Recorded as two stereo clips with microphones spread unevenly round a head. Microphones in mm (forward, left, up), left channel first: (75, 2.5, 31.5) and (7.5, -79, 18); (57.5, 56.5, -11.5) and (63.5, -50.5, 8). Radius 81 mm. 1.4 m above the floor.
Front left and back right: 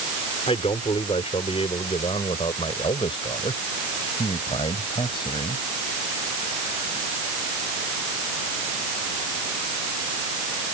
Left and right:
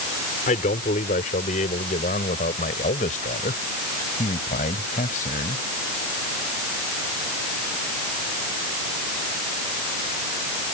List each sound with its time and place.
0.5 s a man speaking: 110° left